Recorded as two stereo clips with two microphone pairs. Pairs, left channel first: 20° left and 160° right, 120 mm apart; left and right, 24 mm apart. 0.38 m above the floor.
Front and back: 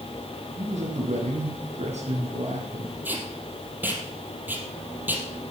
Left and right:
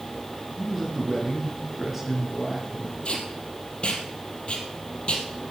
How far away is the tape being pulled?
About 3 m.